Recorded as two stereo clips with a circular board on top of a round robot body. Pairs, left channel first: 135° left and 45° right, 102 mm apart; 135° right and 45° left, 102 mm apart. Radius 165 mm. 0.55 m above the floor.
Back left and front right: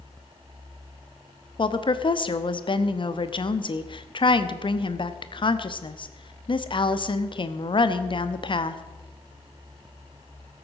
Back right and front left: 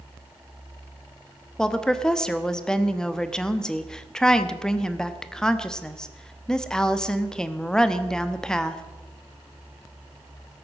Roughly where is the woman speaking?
Behind left.